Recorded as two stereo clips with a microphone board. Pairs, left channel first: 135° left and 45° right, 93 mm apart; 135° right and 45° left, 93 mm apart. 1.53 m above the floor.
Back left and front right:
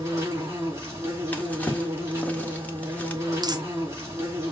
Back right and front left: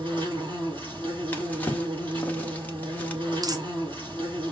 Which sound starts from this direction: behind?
A drawer, at 1.3 s.